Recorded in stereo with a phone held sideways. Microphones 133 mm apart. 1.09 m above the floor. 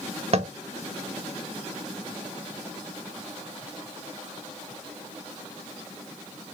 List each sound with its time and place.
0.3 s tapping: 50° right (ahead or behind), 0.6 m